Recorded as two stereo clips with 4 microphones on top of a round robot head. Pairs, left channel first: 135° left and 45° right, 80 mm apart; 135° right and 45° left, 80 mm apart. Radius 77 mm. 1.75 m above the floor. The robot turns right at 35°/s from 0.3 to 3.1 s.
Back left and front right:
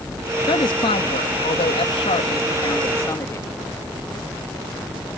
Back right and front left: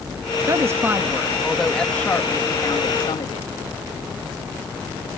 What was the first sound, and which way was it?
A woman speaking, 100° left.